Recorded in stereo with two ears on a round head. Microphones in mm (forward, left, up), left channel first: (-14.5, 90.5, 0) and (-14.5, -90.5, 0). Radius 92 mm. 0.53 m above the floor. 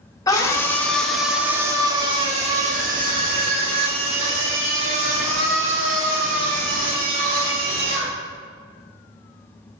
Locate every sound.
0.3 s a scream: 20° left (ahead or behind), 1.3 m; by 8.2 s 70° right (ahead or behind), 3.5 m